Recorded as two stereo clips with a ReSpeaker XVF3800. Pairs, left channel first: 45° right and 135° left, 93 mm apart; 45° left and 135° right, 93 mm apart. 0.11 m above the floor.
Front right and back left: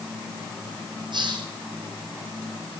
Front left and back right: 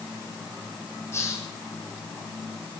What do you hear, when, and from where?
1.1 s a hiss: 105° left, 3 m